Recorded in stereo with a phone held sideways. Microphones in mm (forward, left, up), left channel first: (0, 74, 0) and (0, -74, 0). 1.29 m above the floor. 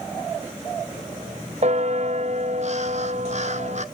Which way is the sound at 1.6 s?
50° right (ahead or behind).